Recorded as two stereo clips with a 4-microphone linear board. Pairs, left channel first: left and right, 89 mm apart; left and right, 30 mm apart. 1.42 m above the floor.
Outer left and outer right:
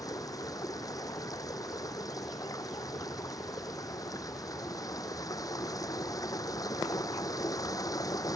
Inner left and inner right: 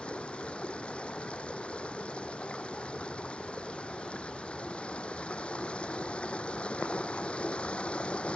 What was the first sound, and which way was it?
Running water, 40° left (ahead or behind).